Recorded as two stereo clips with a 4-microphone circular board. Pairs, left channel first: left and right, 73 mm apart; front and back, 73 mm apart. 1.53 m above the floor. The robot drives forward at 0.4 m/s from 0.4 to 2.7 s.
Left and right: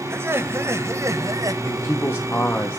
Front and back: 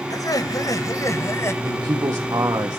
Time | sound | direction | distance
0.1 | laughter | 35° right | 1.3 m
1.6 | a man speaking | 145° left | 1.1 m